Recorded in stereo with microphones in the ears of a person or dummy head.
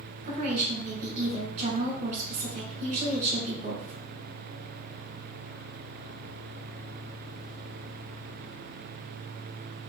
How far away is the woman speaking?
About 1.7 m.